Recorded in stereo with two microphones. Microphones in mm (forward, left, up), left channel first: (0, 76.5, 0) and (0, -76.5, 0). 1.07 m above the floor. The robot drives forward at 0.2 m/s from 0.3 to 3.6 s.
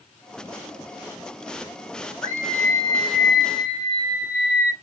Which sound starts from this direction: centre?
A scream, at 2.2 s.